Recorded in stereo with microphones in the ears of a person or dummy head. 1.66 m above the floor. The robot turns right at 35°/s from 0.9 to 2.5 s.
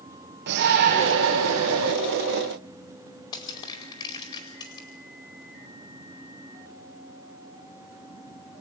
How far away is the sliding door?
No sliding door in this recording.